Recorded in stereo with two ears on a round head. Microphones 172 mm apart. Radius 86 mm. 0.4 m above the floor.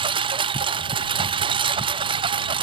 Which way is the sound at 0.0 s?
25° right (ahead or behind).